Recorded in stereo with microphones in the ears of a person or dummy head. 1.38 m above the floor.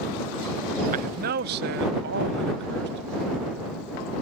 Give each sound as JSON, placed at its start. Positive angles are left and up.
{"t": 0.9, "sound": "a man speaking", "side_deg": -45}